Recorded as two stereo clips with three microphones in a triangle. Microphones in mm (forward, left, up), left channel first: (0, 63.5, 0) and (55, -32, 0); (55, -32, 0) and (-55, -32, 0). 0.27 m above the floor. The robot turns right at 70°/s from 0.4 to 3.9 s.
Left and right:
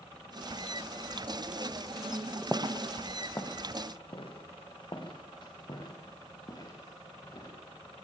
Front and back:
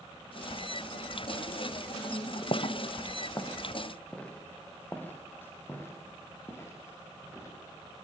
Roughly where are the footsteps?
Ahead.